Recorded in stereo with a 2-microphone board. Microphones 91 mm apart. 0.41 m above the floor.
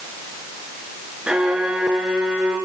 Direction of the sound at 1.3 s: 5° right (ahead or behind).